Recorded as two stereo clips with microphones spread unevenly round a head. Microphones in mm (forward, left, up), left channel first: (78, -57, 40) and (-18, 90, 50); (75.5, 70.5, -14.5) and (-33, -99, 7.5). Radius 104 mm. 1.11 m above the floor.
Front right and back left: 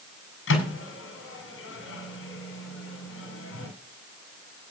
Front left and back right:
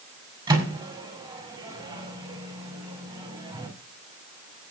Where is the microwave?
55° right, 5 m.